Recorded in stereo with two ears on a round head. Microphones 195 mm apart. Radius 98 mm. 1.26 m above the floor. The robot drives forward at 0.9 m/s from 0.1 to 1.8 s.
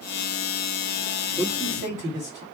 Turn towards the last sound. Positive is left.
turn(degrees=-20)  # may be behind; listen again after turning